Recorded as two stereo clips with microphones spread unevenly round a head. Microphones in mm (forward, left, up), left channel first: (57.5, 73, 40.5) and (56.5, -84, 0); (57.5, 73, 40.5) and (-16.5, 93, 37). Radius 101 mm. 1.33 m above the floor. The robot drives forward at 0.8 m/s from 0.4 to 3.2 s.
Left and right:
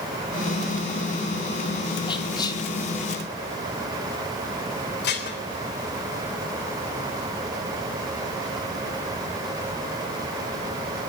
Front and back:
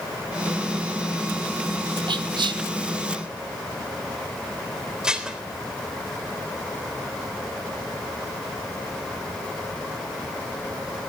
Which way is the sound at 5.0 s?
85° left.